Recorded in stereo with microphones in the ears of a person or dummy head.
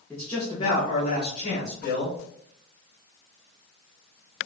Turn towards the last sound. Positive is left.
turn(degrees=65)  # may be behind; listen again after turning